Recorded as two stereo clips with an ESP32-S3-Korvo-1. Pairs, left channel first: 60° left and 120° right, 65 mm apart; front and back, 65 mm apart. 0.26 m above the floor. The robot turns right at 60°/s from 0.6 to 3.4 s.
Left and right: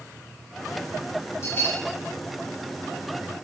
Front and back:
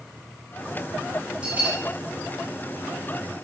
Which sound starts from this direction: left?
A bell, at 1.4 s.